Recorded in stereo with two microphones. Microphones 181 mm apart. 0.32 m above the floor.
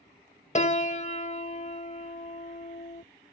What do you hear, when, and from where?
0.6 s a piano: 40° left (ahead or behind)